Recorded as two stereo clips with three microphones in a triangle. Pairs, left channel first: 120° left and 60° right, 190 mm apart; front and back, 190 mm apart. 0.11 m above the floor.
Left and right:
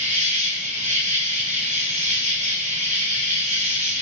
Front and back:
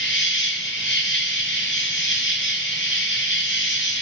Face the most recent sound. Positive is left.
turn(degrees=-5)